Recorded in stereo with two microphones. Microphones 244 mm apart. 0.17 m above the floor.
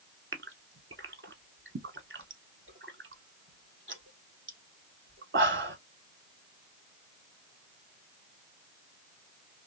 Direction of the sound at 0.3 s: 55° right (ahead or behind).